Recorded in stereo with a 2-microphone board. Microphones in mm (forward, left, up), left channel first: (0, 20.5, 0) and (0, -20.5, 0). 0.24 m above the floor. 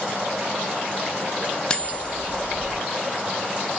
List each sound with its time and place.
1.7 s cutlery clinking: 20° left (ahead or behind), 0.8 m